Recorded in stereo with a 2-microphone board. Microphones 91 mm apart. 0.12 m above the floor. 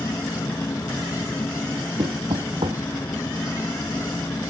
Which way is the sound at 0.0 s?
35° left (ahead or behind).